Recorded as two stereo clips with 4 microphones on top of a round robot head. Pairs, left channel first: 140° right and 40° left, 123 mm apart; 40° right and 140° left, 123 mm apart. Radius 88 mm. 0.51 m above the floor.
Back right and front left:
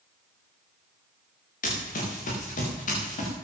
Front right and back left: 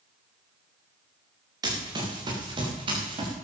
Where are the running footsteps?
160° right, 5 m; by 3.3 s 170° right, 6 m.